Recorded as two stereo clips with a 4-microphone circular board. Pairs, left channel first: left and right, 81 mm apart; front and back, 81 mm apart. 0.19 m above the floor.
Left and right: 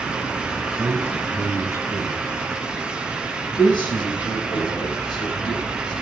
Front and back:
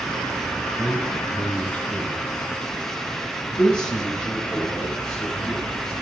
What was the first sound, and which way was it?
A man speaking, 55° right.